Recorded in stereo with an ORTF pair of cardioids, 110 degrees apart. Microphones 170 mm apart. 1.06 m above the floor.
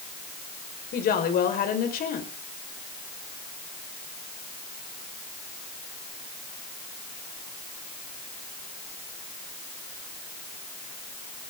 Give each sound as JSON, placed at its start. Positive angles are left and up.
{"t": 0.9, "sound": "a woman speaking", "azimuth_deg": 55, "distance_m": 5.0}